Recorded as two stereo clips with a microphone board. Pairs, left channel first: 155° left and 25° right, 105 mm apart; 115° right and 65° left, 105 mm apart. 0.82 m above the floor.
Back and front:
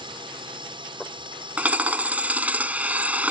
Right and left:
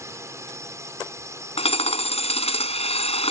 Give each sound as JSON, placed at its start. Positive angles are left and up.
{"t": 0.0, "sound": "a drone", "azimuth_deg": 10}
{"t": 1.6, "sound": "hammering", "azimuth_deg": -100}